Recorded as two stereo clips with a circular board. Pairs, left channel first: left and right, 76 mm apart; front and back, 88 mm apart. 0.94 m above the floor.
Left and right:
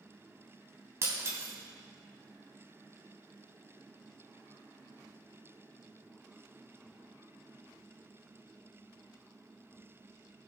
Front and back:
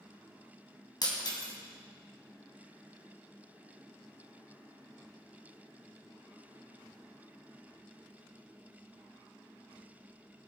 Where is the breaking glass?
40° right, 2.5 m.